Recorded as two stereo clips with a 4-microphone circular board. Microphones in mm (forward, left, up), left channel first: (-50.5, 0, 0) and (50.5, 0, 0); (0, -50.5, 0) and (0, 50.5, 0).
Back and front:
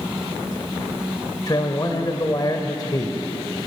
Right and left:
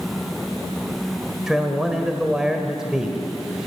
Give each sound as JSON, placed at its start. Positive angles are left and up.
{"t": 1.5, "sound": "a man speaking", "azimuth_deg": 170, "distance_m": 1.6}